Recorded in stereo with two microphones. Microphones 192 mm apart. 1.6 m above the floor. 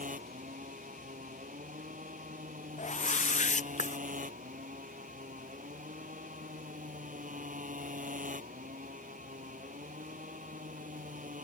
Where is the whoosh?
40° left (ahead or behind).